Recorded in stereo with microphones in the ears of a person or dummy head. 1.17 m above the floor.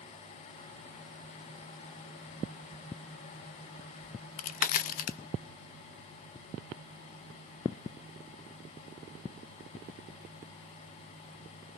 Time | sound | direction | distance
4.0 | a crack | 50° left (ahead or behind) | 0.8 m